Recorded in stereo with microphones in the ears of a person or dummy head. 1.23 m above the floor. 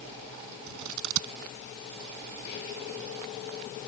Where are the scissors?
75° right (ahead or behind).